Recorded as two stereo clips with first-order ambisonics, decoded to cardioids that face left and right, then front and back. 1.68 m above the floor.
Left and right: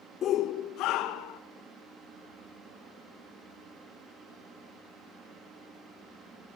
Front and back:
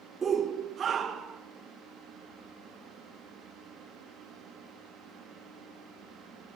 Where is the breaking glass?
I don't hear breaking glass.